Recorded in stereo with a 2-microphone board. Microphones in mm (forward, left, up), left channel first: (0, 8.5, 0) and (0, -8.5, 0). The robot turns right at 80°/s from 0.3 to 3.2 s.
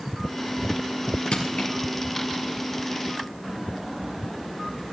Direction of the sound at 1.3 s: 80° left.